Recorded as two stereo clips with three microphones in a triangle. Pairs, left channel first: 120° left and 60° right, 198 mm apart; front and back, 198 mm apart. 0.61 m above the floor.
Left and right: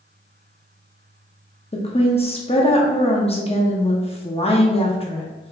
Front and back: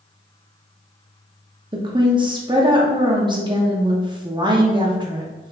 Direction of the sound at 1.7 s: 140° left.